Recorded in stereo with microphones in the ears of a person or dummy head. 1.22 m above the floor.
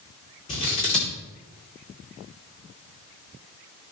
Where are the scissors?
35° left (ahead or behind), 2.5 m.